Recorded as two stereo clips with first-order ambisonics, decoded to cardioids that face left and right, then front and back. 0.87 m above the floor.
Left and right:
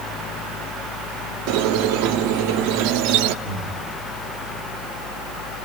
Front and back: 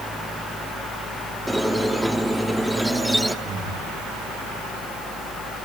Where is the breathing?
110° right, 5.5 m.